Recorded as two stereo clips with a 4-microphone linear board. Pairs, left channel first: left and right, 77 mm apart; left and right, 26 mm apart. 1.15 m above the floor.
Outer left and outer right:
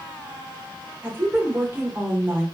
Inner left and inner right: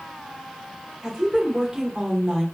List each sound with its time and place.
1.0 s a woman speaking: 25° right (ahead or behind), 0.8 m